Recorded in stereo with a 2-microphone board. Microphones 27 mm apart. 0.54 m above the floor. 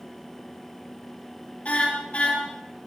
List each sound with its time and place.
1.6 s a car horn: 55° left (ahead or behind), 7 m